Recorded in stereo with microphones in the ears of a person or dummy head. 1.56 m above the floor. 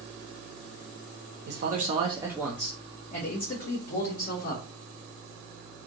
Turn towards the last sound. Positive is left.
turn(degrees=55)  # may be behind; listen again after turning